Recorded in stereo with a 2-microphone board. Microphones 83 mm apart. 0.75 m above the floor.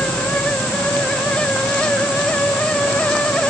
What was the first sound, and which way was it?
Only background noise.